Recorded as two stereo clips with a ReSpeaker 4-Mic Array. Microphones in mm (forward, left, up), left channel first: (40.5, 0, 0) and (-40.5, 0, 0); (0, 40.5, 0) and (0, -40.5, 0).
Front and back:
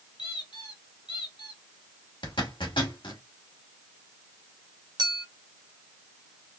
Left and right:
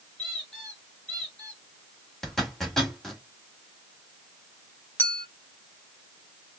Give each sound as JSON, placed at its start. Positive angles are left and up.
{"t": 0.2, "sound": "a squeak", "azimuth_deg": 10, "distance_m": 2.5}
{"t": 2.2, "sound": "a zipper", "azimuth_deg": 5, "distance_m": 2.0}
{"t": 5.0, "sound": "a clink", "azimuth_deg": 155, "distance_m": 1.5}